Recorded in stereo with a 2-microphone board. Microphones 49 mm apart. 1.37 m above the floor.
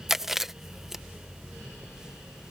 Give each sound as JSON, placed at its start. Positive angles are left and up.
{"t": 0.1, "sound": "chewing", "side_deg": -10}